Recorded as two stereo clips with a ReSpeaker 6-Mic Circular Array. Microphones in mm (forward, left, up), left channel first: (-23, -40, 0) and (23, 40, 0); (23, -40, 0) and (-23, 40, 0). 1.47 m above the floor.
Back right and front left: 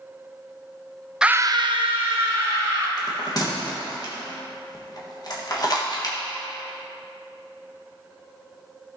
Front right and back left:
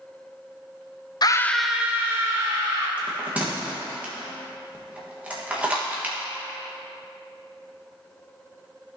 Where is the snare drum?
I don't hear a snare drum.